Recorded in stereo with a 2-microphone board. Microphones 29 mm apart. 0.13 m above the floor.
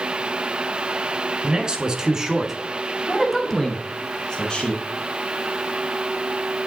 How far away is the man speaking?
About 1.3 m.